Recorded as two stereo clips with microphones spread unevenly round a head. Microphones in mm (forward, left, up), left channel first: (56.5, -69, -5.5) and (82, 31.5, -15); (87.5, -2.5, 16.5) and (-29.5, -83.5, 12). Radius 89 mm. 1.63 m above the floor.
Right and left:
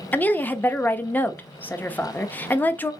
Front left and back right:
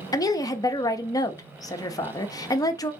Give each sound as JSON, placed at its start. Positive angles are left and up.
{"t": 0.1, "sound": "a woman speaking", "azimuth_deg": -30, "distance_m": 0.7}